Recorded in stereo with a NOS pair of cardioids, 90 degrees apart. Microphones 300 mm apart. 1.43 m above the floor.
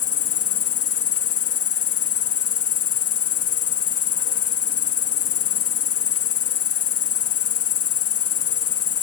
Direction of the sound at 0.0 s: 55° left.